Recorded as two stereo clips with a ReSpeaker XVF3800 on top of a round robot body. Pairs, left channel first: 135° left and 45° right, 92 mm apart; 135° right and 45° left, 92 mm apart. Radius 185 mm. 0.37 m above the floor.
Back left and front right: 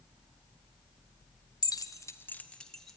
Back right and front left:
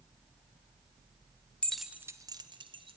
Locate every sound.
1.6 s keys jangling: 150° left, 1.0 m; by 3.0 s 45° left, 1.7 m